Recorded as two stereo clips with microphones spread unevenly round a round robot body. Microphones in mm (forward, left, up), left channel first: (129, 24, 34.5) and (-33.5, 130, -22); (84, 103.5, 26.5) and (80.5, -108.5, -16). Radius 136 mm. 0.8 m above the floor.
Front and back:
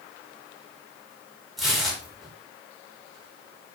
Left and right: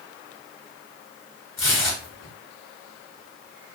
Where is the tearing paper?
70° left, 1.4 m.